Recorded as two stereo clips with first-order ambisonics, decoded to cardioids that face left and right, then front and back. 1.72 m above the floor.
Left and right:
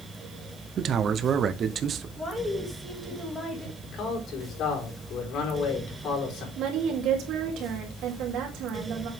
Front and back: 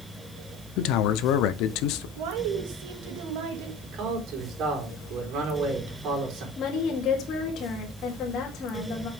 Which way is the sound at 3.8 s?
135° left.